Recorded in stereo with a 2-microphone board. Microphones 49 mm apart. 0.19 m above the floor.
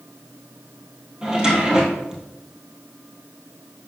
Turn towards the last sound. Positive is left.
turn(degrees=-15)  # may be behind; listen again after turning